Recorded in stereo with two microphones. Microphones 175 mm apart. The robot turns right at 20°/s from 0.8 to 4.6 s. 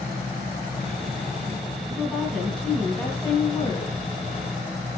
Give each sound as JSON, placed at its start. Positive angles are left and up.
{"t": 1.9, "sound": "a woman speaking", "azimuth_deg": -5, "distance_m": 3.0}